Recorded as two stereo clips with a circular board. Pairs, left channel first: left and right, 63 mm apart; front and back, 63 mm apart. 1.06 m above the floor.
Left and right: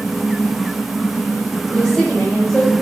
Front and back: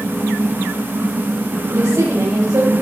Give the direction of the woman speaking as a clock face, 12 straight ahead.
7 o'clock.